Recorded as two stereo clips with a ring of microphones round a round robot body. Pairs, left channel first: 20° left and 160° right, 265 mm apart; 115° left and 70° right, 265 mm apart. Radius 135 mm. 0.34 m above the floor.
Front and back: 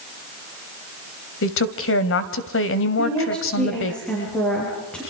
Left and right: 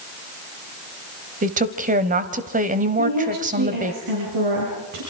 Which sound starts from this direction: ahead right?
A woman speaking, at 3.0 s.